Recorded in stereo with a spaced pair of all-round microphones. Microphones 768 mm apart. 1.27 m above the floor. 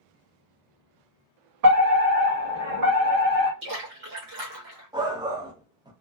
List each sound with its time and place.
1.6 s a fire alarm: 55° right (ahead or behind), 1.5 m
3.6 s a splash: 70° right (ahead or behind), 1.2 m
4.9 s a shout: 5° right (ahead or behind), 0.6 m